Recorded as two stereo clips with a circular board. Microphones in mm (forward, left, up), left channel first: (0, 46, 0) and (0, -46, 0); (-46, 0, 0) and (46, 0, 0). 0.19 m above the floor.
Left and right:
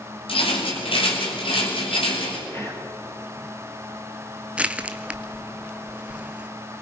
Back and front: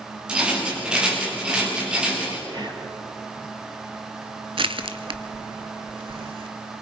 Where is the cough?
I don't hear a cough.